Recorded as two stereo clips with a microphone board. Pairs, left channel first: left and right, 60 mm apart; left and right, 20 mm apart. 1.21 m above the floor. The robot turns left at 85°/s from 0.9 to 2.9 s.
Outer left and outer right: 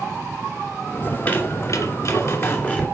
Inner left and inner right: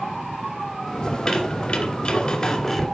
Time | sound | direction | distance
1.1 | a squeak | 170° left | 2.5 m